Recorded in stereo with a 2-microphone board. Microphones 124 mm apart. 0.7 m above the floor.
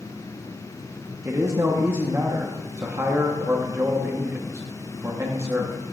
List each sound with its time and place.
1.2 s a man speaking: 25° right (ahead or behind), 0.9 m